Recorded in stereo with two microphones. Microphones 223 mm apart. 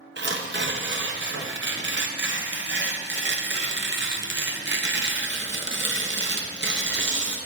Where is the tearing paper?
55° right (ahead or behind), 0.7 m.